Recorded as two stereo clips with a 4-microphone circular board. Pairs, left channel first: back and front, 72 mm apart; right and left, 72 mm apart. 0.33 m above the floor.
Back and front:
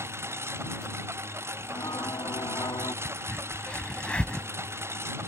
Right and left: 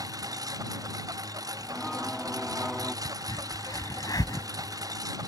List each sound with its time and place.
0.0 s a lawn mower: 55° left
1.6 s singing: 175° left
3.0 s a crack: 105° right